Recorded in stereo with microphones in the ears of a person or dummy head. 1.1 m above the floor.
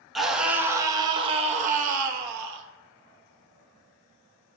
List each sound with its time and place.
0.1 s a scream: 5° right (ahead or behind), 1.2 m; by 2.6 s 60° right (ahead or behind), 1.5 m